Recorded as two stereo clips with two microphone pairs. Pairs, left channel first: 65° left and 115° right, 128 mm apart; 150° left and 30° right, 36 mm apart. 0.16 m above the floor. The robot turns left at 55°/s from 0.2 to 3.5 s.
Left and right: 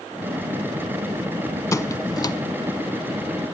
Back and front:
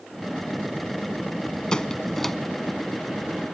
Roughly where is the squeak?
Left.